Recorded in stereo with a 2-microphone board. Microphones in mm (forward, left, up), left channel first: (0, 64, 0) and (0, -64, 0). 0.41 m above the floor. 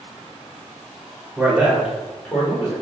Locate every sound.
1.4 s a man speaking: 15° right (ahead or behind), 1.6 m; by 2.7 s 30° left (ahead or behind), 1.3 m